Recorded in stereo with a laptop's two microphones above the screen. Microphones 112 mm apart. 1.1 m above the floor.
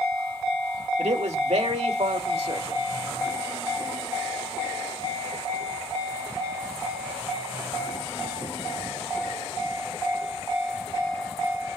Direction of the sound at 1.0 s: 70° right (ahead or behind).